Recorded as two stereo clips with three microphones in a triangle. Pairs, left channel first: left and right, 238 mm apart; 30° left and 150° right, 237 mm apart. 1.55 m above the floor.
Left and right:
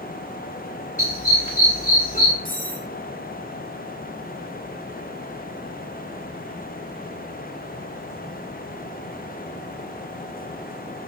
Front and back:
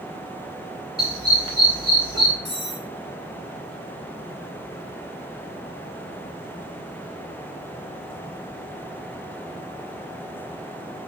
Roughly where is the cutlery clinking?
Ahead.